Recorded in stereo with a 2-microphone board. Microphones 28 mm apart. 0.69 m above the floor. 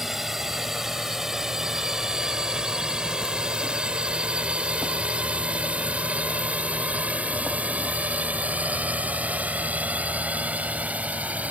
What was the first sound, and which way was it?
A drone, 15° right (ahead or behind).